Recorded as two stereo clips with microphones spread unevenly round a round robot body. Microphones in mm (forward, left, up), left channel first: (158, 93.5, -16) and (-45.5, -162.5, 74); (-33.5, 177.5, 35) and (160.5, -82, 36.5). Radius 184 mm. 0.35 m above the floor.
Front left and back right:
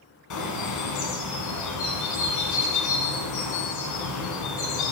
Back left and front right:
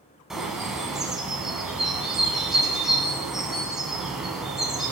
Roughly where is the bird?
Ahead left.